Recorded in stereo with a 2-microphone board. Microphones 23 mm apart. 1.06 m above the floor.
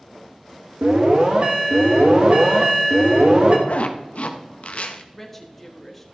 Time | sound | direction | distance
0.8 | an alarm | 60° right (ahead or behind) | 1.7 m
3.7 | a zipper | 80° left | 0.7 m
5.1 | a woman speaking | 5° left (ahead or behind) | 1.3 m